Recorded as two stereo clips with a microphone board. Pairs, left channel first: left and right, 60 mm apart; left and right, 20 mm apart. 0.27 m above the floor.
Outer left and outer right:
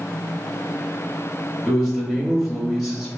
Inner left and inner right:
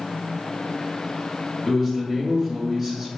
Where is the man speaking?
5° right (ahead or behind), 1.0 m.